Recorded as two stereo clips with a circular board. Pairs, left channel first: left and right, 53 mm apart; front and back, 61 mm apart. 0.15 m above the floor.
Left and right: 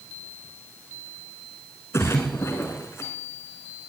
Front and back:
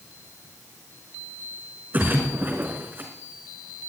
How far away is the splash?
About 3.5 m.